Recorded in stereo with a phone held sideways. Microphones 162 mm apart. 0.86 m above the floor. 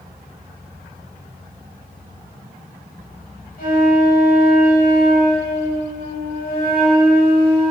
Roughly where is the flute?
Left.